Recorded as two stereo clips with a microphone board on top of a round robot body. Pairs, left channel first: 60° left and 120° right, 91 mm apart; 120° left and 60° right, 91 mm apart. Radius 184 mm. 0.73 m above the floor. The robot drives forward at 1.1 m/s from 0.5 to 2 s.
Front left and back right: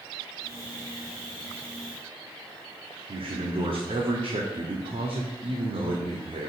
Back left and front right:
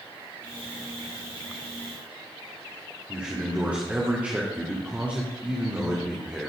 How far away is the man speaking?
About 2.5 m.